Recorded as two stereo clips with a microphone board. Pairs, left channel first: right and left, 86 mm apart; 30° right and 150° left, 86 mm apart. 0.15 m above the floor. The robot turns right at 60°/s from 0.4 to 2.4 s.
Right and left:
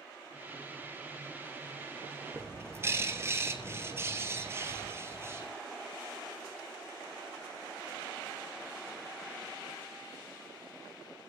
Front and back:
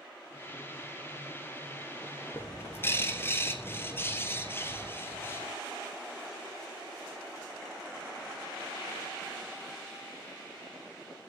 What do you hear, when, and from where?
2.3 s a bird: 30° left, 1.8 m